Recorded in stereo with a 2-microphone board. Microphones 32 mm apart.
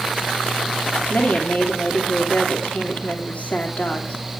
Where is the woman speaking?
50° left (ahead or behind), 3 m.